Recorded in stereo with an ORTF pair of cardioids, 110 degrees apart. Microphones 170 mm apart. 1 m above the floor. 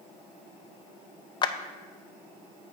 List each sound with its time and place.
1.4 s a clap: 25° left, 0.5 m